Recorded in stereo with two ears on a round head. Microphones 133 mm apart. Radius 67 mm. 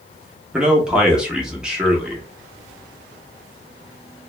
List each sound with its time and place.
0.5 s a man speaking: 5° right (ahead or behind), 0.7 m